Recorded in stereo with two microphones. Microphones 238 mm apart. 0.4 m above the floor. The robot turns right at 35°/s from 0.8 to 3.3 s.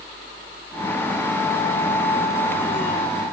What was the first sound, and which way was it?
Only background noise.